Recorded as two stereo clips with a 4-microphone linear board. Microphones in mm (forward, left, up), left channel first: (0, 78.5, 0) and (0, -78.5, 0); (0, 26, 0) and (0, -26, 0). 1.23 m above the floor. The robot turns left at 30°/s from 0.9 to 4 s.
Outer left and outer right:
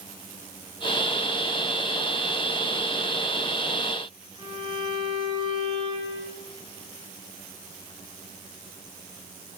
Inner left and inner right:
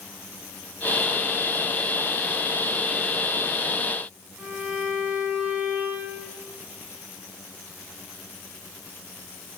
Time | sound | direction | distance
4.4 | a violin | 30° right (ahead or behind) | 8 m